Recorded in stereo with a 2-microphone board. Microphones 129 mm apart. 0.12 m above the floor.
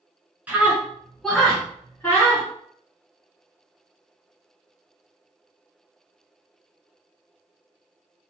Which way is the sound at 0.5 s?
10° right (ahead or behind).